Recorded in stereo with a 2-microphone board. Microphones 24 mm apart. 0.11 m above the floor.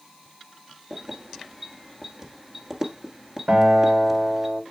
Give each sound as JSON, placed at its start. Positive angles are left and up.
{"t": 0.9, "sound": "keys jangling", "side_deg": -20, "distance_m": 1.4}
{"t": 3.5, "sound": "a guitar", "side_deg": -70, "distance_m": 6.0}